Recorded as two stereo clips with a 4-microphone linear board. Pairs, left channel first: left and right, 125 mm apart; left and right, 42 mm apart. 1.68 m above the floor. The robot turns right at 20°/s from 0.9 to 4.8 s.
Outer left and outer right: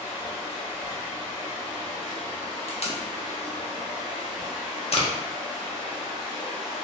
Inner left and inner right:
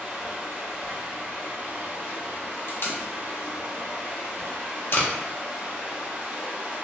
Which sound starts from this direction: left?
Tape being pulled, at 2.7 s.